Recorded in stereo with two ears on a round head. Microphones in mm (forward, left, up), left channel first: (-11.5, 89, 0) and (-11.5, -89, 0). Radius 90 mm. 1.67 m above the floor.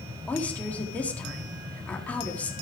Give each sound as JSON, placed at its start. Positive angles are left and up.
{"t": 0.3, "sound": "a woman speaking", "side_deg": 5, "distance_m": 4.0}